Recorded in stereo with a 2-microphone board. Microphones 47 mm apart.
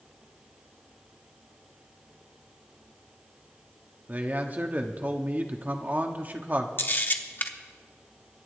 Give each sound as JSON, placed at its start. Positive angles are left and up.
{"t": 4.1, "sound": "a man speaking", "side_deg": -35, "distance_m": 1.2}
{"t": 6.8, "sound": "a camera shutter", "side_deg": 45, "distance_m": 0.9}